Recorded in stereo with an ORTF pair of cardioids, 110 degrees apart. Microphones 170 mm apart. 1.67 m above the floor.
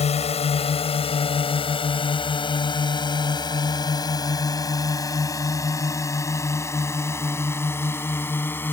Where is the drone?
40° left; by 8.7 s 10° left.